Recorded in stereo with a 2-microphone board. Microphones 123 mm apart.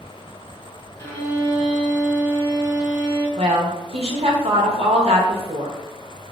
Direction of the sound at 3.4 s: 55° right (ahead or behind).